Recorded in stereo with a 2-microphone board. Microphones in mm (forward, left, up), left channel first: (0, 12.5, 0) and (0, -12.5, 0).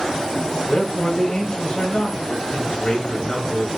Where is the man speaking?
30° left (ahead or behind), 1.3 m.